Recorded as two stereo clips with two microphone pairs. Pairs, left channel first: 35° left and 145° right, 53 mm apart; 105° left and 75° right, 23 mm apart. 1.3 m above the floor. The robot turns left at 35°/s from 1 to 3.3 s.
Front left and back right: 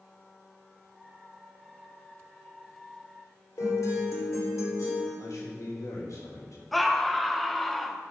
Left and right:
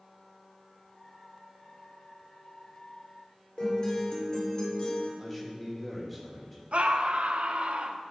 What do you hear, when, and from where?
3.6 s a guitar: 55° left, 3 m
5.2 s a man speaking: 20° left, 2.5 m
6.7 s a scream: 55° right, 0.9 m